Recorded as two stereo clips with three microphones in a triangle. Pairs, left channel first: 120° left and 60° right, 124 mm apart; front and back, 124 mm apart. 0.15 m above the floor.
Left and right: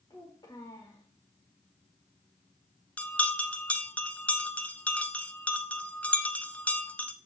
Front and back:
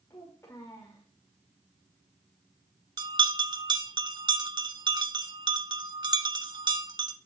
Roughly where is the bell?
Behind.